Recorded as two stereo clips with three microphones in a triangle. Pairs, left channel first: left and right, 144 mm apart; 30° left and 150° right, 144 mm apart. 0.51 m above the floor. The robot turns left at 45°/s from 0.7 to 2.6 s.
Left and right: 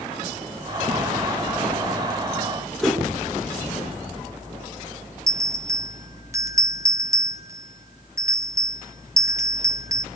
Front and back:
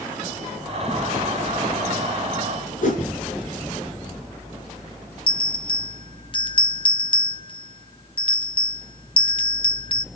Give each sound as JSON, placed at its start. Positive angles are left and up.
{"t": 2.8, "sound": "a whoosh", "azimuth_deg": 0, "distance_m": 4.5}
{"t": 5.3, "sound": "a bell", "azimuth_deg": -25, "distance_m": 0.6}